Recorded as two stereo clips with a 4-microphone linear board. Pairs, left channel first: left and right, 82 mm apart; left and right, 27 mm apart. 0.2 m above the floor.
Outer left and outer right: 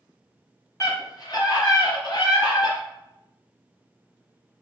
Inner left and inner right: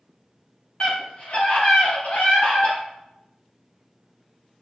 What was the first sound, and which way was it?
A scream, 35° left (ahead or behind).